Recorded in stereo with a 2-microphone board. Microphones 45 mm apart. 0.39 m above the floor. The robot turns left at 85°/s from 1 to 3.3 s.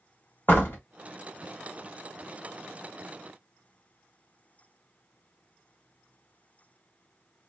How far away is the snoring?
No snoring in this recording.